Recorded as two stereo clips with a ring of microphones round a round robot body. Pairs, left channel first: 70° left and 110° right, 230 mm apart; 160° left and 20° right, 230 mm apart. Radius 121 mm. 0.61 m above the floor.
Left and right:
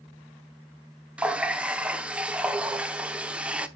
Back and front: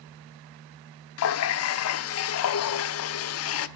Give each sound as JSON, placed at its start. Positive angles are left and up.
{"t": 1.2, "sound": "a running tap", "azimuth_deg": 160, "distance_m": 0.9}